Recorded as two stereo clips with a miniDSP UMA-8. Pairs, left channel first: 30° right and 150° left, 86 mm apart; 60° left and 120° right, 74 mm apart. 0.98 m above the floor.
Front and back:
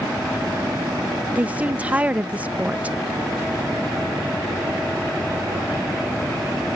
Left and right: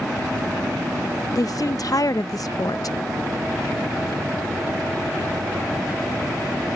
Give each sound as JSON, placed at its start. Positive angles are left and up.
{"t": 1.4, "sound": "a woman speaking", "azimuth_deg": 80}